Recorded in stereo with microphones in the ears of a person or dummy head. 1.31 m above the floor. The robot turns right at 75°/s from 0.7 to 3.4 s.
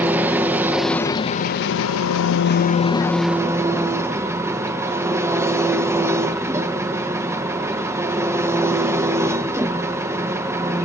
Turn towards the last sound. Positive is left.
turn(degrees=-170)